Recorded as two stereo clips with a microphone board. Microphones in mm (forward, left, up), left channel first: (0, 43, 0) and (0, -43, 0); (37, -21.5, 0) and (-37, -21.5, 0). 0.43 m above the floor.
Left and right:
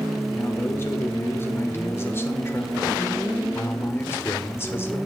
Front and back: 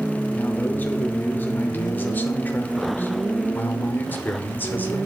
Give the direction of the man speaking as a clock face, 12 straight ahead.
10 o'clock.